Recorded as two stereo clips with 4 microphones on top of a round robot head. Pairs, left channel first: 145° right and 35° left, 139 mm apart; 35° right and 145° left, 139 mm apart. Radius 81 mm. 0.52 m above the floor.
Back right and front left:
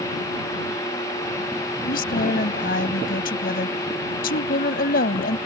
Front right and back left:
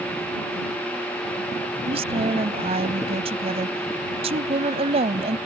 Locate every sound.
1.9 s a woman speaking: 165° right